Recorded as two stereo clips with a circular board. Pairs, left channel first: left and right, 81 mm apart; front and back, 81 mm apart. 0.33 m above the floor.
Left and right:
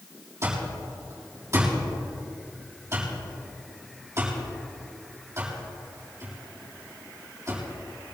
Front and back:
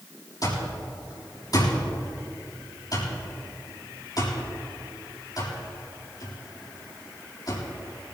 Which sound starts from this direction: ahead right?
An alarm clock, at 0.4 s.